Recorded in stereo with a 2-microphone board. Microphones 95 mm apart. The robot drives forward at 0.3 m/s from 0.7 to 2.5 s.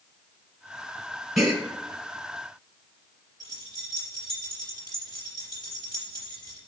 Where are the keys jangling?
45° left (ahead or behind), 4 m.